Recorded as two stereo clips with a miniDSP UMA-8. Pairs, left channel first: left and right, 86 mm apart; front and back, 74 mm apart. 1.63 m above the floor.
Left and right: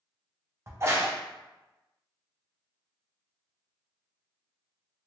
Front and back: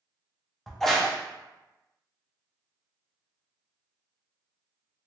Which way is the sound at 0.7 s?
85° right.